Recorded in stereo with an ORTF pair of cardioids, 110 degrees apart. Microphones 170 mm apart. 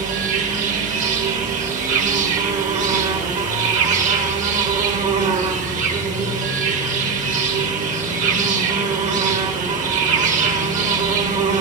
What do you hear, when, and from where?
0.0 s an insect: 45° right, 1.4 m